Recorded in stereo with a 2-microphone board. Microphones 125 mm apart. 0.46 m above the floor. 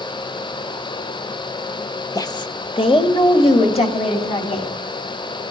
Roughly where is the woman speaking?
Left.